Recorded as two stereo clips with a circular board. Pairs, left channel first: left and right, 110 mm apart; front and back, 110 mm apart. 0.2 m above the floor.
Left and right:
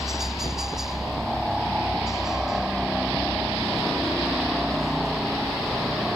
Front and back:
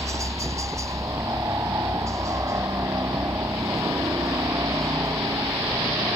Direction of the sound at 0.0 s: 175° right.